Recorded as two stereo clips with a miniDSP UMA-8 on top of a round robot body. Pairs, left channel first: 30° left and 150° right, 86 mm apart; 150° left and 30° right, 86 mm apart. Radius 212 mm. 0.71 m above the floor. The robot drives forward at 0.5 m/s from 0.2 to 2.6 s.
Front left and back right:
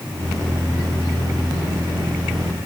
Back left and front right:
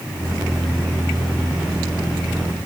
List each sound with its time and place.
Only background noise.